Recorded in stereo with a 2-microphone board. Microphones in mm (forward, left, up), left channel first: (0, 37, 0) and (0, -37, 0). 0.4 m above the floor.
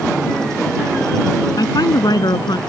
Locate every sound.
1.6 s a woman speaking: 70° left (ahead or behind); by 2.6 s 75° left (ahead or behind)